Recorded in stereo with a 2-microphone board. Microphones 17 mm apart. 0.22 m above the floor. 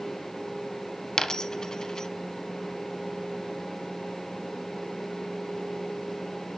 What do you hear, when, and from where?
1.2 s a dropped coin: 45° left (ahead or behind), 0.8 m